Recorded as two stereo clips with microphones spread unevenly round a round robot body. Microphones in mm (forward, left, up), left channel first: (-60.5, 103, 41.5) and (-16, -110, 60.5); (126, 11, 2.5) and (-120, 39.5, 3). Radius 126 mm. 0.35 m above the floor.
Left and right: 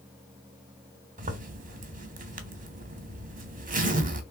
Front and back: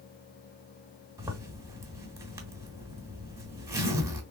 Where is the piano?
I don't hear a piano.